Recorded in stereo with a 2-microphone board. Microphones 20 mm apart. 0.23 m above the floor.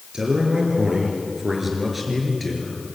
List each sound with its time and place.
0.1 s a man speaking: 40° right (ahead or behind), 4.5 m; by 2.8 s 15° left (ahead or behind), 5 m